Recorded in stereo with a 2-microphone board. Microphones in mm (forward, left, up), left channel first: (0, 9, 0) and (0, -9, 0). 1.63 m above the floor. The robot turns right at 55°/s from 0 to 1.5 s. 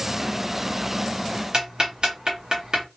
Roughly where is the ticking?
Right.